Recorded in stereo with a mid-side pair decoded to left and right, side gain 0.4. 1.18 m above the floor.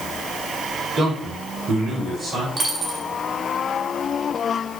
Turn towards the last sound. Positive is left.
turn(degrees=-45)